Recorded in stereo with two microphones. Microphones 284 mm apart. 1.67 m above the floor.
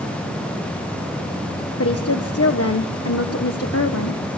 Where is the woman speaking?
55° left (ahead or behind), 1.3 m.